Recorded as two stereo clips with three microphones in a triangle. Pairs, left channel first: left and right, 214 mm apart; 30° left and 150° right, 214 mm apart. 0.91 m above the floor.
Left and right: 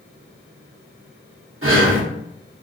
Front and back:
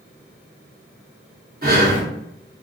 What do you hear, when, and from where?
1.6 s breathing: 105° right, 0.9 m